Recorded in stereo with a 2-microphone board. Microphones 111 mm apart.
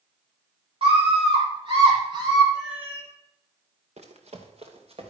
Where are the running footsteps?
70° right (ahead or behind), 2.5 m; by 5.1 s 55° right (ahead or behind), 3 m.